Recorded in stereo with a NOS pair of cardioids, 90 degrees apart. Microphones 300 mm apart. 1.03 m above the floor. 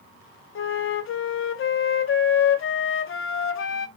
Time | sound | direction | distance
0.6 | a flute | 45° left | 0.7 m